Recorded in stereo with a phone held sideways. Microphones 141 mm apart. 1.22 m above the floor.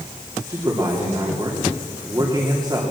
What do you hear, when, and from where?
0.5 s a man speaking: 30° right (ahead or behind), 3 m